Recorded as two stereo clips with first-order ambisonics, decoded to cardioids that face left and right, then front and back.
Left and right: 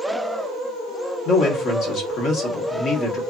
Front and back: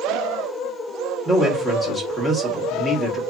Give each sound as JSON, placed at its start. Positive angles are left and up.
{"t": 1.2, "sound": "a man speaking", "azimuth_deg": 95, "distance_m": 1.0}